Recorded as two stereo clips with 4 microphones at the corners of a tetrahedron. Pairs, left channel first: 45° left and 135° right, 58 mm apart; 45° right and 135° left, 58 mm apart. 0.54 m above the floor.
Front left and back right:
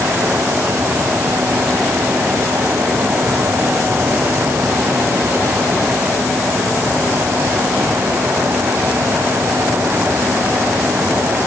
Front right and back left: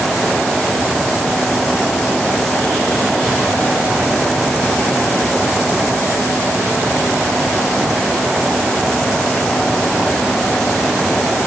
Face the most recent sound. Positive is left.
No sound to turn to.